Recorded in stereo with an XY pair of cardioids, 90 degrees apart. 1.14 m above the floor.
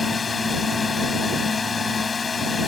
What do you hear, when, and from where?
0.0 s a drone: 35° left